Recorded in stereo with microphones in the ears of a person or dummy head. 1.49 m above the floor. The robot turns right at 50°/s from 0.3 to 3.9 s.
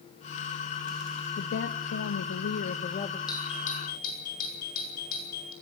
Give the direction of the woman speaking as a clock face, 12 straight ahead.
10 o'clock.